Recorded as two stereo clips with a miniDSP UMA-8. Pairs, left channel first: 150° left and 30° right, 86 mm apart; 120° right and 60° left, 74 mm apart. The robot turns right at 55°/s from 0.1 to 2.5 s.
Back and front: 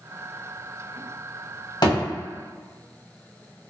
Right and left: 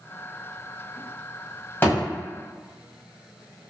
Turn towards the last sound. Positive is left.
turn(degrees=-145)